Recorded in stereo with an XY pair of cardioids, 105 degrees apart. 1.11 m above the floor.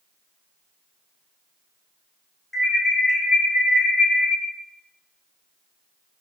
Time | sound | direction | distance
2.5 | an alarm | 5° left | 1.1 m